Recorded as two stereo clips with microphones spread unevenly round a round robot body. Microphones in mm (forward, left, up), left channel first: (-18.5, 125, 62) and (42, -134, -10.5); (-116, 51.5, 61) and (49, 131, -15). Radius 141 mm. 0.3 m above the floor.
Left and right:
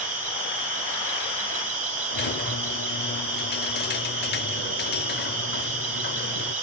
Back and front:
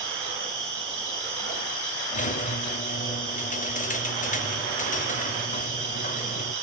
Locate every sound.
0.0 s an insect: 15° right, 5.5 m
2.1 s a squeak: 150° left, 0.9 m